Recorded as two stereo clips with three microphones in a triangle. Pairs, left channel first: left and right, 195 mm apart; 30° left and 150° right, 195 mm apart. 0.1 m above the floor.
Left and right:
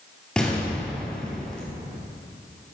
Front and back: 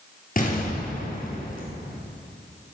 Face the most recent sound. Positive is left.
turn(degrees=5)